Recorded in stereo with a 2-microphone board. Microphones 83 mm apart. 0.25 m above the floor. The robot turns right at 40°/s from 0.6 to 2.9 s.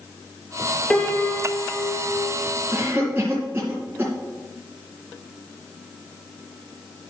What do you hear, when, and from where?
0.9 s a piano: 10° left, 1.8 m; by 2.4 s 70° left, 1.8 m
2.7 s a cough: 20° right (ahead or behind), 2.5 m; by 4.1 s 25° right (ahead or behind), 2.5 m